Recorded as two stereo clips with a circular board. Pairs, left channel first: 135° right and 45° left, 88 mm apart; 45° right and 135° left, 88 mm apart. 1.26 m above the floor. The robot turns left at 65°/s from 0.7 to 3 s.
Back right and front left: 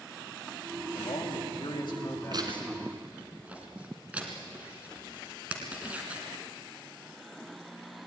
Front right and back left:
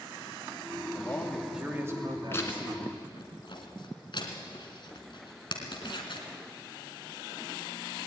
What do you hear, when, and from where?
0.9 s a man speaking: 105° right, 3 m; by 3.0 s 125° left, 3 m
2.3 s tearing paper: 15° left, 2.5 m; by 6.3 s 30° right, 2.5 m